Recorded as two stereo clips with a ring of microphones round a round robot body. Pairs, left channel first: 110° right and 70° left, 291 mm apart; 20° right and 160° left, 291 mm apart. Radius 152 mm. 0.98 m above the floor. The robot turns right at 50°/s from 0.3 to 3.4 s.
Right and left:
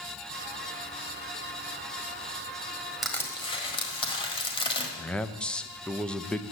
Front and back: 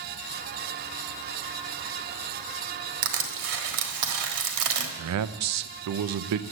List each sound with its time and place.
3.0 s crushing: 155° left, 1.4 m; by 4.9 s 175° left, 1.4 m
5.0 s a man speaking: 160° left, 0.6 m